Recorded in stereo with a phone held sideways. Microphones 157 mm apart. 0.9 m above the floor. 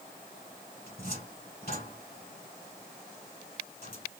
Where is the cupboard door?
80° left, 3.5 m.